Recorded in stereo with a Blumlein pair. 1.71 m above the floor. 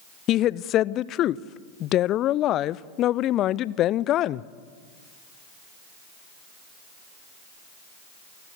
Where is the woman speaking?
35° left, 0.6 m.